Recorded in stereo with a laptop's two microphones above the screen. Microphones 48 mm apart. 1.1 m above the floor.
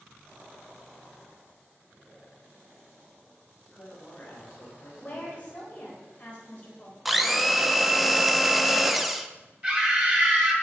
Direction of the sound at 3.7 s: 30° left (ahead or behind).